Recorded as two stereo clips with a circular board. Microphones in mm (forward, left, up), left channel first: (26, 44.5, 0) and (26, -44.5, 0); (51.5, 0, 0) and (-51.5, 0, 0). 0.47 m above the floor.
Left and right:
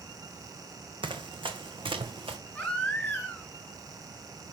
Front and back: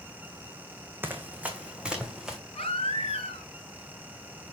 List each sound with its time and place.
1.0 s running footsteps: 110° right, 1.8 m; by 2.4 s 95° right, 2.5 m
2.5 s a baby crying: 15° left, 6 m